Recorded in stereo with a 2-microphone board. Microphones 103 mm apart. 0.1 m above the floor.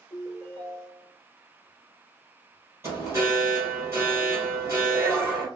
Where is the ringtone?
Centre (ahead or behind), 1.9 m.